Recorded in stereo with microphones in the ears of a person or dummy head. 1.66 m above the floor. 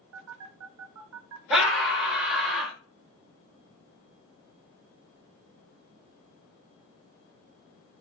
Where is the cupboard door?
I don't hear a cupboard door.